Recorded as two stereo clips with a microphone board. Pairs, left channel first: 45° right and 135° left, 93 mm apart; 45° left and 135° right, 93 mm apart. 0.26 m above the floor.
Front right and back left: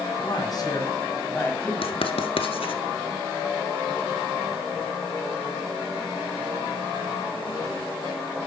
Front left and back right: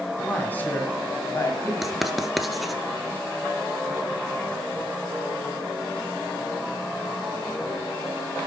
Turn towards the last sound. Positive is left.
turn(degrees=-45)